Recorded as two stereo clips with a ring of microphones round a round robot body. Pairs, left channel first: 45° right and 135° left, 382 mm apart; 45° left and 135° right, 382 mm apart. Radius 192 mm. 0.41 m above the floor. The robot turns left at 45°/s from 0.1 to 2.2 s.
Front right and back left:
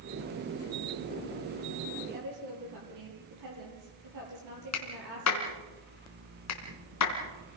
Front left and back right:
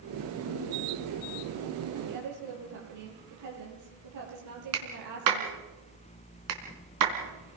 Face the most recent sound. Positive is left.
turn(degrees=-95)